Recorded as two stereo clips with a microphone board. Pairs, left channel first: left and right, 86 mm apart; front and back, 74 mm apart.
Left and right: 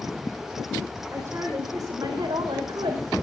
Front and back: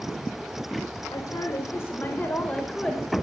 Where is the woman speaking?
30° right, 3 m; by 3.1 s 85° right, 3.5 m.